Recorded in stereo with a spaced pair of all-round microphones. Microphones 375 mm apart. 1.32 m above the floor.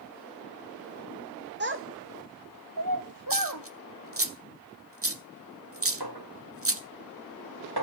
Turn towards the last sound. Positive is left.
turn(degrees=-75)  # may be behind; listen again after turning